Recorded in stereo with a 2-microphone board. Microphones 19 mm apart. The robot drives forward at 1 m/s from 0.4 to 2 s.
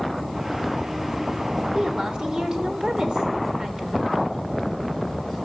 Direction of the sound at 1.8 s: 55° right (ahead or behind).